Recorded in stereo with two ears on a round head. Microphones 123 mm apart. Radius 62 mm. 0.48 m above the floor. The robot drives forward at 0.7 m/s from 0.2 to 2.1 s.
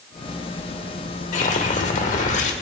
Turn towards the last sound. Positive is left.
turn(degrees=55)  # may be behind; listen again after turning